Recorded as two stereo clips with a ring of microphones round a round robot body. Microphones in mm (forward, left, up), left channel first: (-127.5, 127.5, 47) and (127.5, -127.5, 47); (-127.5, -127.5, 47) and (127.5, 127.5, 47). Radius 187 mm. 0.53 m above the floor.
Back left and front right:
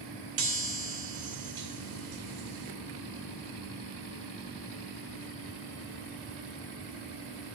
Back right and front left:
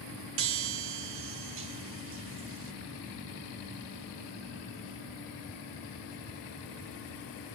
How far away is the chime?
About 0.8 m.